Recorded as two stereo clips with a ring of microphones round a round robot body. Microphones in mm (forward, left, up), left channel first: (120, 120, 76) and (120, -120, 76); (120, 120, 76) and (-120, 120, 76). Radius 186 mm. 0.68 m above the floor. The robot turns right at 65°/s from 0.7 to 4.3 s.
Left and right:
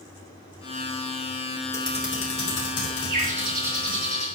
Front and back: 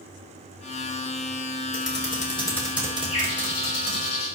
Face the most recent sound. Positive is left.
turn(degrees=35)